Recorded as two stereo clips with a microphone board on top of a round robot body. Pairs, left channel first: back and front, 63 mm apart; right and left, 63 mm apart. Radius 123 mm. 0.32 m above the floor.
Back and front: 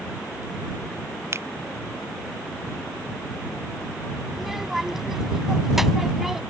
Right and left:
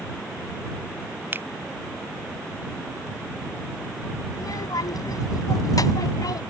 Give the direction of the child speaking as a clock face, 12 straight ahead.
3 o'clock.